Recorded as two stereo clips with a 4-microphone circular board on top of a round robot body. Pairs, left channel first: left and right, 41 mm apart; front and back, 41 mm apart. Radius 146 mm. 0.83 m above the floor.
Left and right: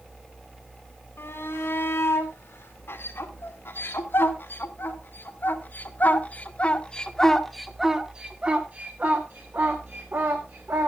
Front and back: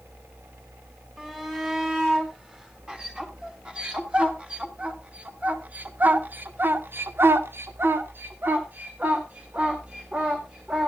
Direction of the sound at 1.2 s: 105° left.